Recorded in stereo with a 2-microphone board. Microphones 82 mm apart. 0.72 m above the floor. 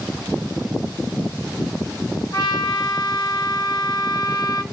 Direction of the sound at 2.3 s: 65° left (ahead or behind).